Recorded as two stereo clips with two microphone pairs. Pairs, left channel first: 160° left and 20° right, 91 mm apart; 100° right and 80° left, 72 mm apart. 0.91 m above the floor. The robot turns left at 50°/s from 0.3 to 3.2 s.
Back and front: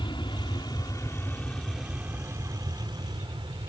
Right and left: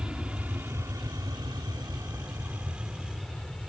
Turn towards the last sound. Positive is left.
turn(degrees=-15)